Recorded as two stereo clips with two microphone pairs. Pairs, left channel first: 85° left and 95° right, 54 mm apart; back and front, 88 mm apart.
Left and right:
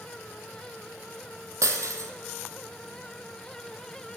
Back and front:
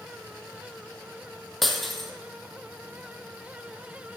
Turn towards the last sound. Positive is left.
turn(degrees=-90)